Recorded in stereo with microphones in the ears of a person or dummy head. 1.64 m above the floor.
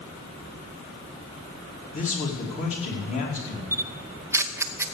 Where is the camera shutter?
15° right (ahead or behind), 0.6 m.